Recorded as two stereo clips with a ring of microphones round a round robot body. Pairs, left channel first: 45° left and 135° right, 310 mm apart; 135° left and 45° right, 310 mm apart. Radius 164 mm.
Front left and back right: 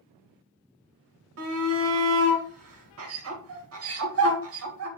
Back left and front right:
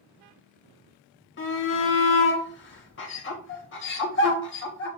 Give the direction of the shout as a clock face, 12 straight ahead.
6 o'clock.